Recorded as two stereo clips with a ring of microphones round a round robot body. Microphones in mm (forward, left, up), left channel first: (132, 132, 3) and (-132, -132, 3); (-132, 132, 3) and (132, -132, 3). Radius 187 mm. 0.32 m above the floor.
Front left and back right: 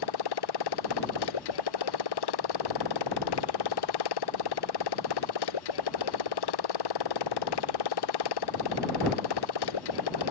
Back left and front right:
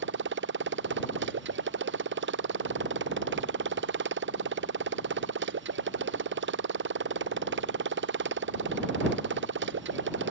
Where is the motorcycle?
15° left.